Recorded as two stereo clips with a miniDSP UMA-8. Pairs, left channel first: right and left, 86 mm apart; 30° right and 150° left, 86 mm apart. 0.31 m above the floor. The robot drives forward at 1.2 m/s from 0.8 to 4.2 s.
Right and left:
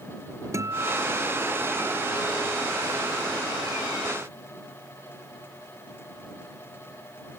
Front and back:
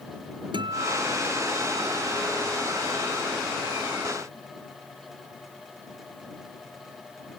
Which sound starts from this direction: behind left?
A guitar, at 0.5 s.